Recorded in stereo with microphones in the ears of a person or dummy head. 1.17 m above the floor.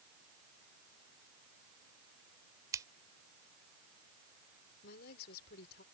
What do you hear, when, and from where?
2.7 s scissors: 20° right (ahead or behind)
4.8 s a woman speaking: 60° left (ahead or behind)